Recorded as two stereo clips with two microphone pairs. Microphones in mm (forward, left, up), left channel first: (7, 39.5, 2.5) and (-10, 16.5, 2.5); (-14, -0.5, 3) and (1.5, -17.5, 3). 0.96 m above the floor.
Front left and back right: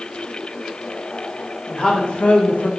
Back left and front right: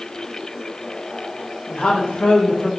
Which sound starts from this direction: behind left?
A woman speaking, at 1.7 s.